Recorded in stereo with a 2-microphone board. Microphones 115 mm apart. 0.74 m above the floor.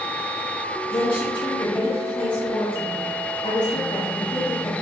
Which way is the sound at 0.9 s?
50° left (ahead or behind).